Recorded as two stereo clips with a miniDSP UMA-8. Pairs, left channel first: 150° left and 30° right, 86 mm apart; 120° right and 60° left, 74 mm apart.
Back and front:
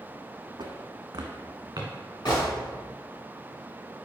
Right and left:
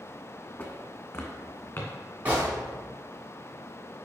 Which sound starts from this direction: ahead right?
Footsteps, at 0.6 s.